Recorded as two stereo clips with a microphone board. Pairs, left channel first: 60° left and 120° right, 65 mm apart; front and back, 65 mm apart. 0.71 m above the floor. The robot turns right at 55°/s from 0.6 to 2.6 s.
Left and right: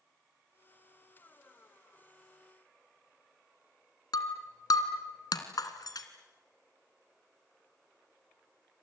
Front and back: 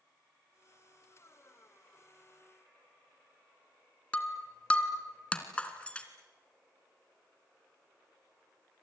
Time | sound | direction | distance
4.1 | breaking glass | 70° left | 2.5 m